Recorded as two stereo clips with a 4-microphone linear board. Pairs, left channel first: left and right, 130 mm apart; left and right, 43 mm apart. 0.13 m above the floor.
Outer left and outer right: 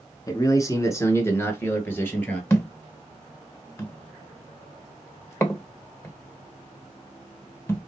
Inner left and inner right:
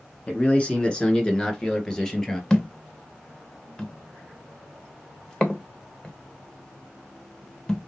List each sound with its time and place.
0.3 s a man speaking: 25° left (ahead or behind), 1.3 m; by 2.4 s 15° left (ahead or behind), 2 m
2.5 s a thud: 20° left (ahead or behind), 1.0 m